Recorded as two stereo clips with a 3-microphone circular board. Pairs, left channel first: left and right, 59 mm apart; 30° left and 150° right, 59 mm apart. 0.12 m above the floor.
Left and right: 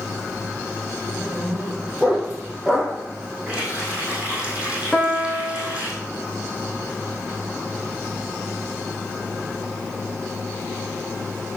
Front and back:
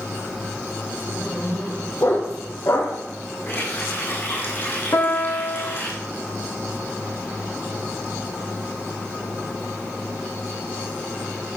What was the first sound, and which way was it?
A dog barking, 10° right.